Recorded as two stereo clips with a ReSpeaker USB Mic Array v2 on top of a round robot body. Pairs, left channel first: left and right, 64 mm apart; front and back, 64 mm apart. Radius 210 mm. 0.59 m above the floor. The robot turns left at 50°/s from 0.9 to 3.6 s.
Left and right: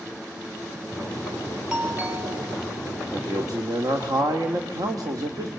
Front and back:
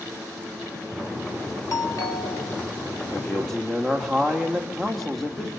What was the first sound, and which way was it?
A doorbell, 15° right.